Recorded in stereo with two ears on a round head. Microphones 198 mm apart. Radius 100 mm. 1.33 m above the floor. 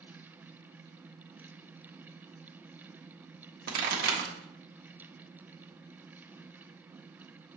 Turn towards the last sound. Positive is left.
turn(degrees=-40)  # may be behind; listen again after turning